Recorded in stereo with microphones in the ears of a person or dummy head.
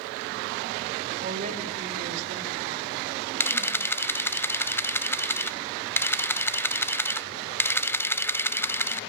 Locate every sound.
1.2 s a woman speaking: 40° right (ahead or behind), 5 m
3.4 s a camera shutter: 10° left (ahead or behind), 0.5 m